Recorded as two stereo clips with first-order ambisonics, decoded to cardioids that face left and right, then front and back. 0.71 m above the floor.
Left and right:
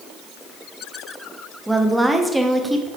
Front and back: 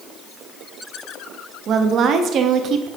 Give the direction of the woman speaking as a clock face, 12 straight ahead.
6 o'clock.